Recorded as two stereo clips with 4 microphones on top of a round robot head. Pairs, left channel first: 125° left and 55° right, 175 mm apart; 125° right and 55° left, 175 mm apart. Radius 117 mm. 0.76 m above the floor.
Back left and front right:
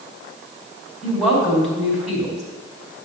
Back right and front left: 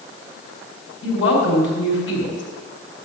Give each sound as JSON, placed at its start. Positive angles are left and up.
{"t": 1.0, "sound": "a woman speaking", "azimuth_deg": -145, "distance_m": 5.0}